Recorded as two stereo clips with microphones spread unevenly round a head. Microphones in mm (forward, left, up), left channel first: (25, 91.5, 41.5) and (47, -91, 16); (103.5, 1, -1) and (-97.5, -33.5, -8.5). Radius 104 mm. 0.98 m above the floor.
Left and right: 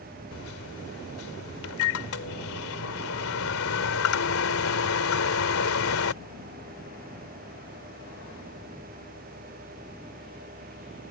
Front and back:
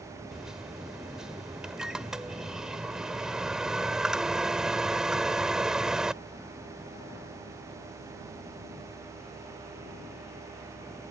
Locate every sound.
0.3 s a microwave: 100° left